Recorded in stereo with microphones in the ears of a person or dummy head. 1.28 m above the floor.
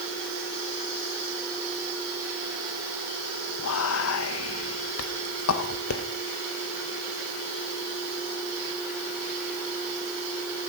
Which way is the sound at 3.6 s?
75° left (ahead or behind).